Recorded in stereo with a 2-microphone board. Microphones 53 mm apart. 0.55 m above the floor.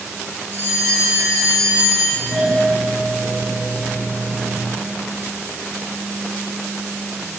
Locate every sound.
0.5 s a bell: 65° right (ahead or behind), 2.5 m
2.1 s a doorbell: 50° right (ahead or behind), 3 m